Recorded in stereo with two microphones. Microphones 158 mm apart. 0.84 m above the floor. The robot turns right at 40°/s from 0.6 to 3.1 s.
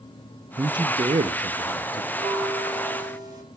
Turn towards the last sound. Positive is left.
turn(degrees=-25)